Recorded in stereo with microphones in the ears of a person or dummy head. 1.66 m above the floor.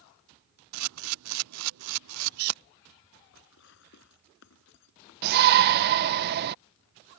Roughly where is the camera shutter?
Right.